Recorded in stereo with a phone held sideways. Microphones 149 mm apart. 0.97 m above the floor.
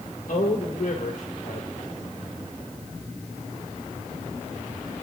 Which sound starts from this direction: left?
A man speaking, at 0.3 s.